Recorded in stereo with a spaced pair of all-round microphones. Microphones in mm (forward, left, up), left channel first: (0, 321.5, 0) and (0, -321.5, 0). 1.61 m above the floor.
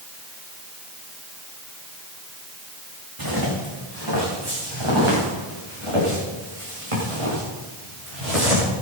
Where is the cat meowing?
No cat meowing in this recording.